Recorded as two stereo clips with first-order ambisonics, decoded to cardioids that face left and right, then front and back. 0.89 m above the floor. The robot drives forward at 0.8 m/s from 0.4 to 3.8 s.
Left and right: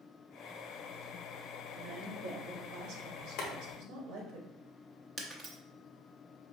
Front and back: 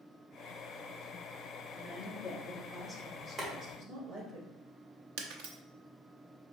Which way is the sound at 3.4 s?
110° left.